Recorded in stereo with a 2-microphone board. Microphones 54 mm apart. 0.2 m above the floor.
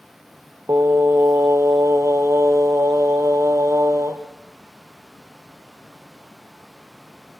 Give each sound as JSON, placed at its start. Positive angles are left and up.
{"t": 0.7, "sound": "singing", "side_deg": -60, "distance_m": 2.5}